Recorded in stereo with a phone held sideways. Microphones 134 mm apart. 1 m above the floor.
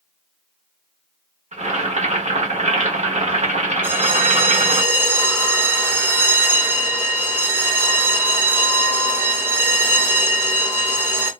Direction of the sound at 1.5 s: 60° right (ahead or behind).